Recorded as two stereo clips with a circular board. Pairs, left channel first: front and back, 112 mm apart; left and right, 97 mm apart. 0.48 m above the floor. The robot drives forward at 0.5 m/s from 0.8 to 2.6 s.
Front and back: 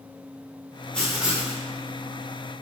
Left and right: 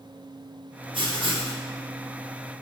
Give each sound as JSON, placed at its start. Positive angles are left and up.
{"t": 0.9, "sound": "writing", "azimuth_deg": -80, "distance_m": 0.6}